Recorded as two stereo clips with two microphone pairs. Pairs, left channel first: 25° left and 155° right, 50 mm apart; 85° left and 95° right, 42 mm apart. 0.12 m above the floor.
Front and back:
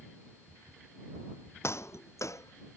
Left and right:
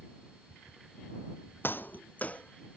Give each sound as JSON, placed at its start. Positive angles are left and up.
{"t": 1.6, "sound": "footsteps", "azimuth_deg": 50}